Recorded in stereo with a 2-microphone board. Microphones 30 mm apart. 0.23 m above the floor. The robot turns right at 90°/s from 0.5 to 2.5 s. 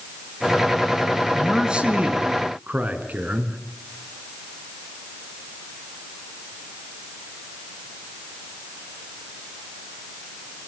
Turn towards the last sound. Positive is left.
turn(degrees=-70)